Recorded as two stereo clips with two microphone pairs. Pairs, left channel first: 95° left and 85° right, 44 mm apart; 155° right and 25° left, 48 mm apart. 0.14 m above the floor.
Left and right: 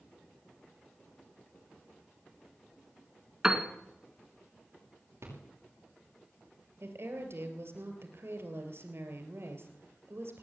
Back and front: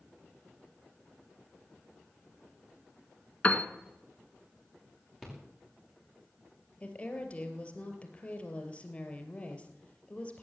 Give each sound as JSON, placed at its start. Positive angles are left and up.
{"t": 3.4, "sound": "a piano", "azimuth_deg": -140, "distance_m": 1.3}
{"t": 5.2, "sound": "a rattle", "azimuth_deg": -60, "distance_m": 6.5}
{"t": 6.8, "sound": "a woman speaking", "azimuth_deg": -90, "distance_m": 3.0}